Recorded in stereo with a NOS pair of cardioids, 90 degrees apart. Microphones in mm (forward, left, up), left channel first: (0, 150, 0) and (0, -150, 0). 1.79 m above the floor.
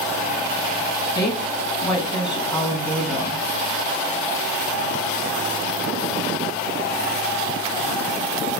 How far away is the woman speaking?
About 1.4 m.